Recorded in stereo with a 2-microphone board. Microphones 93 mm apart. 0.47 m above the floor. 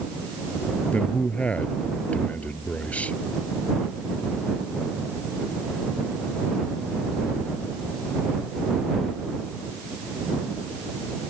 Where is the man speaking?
15° left (ahead or behind).